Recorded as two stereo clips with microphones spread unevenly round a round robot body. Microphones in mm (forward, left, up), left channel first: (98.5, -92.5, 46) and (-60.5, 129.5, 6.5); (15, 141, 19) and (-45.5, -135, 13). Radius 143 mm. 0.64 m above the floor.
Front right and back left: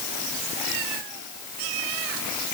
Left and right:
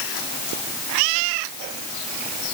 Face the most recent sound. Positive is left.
No sound to turn to.